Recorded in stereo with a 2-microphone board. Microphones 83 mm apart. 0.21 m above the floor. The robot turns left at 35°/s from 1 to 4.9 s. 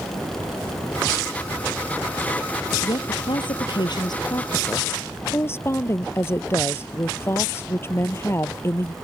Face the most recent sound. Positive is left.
turn(degrees=30)